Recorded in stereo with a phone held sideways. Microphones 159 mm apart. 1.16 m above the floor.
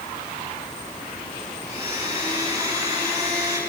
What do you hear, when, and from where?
1.7 s a blender: 25° right (ahead or behind), 5.5 m